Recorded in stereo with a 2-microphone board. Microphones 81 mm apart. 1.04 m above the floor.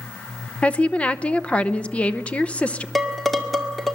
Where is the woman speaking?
15° left (ahead or behind), 0.8 m.